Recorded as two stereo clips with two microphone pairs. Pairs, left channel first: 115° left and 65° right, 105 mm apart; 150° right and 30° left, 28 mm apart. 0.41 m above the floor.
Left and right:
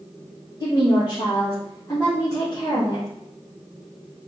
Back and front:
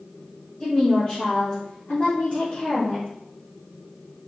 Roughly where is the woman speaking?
Behind left.